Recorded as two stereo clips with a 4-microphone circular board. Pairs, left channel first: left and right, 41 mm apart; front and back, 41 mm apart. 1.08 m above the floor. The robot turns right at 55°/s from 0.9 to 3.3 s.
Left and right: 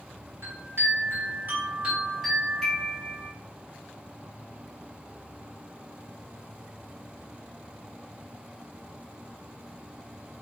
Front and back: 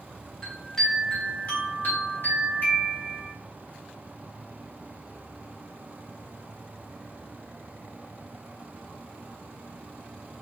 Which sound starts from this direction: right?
A chime, at 0.4 s.